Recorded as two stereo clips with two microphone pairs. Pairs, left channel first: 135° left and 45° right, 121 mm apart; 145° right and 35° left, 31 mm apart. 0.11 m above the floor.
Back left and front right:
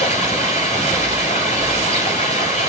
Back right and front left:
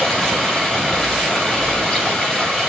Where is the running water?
140° left, 9 m.